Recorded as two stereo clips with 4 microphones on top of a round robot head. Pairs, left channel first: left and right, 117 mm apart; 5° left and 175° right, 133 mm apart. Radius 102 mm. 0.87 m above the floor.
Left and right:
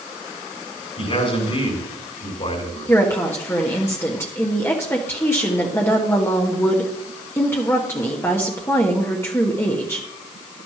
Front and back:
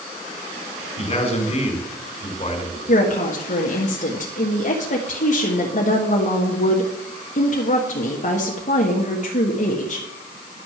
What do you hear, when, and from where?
1.0 s a man speaking: 50° left, 3.5 m
2.9 s a woman speaking: 20° left, 1.5 m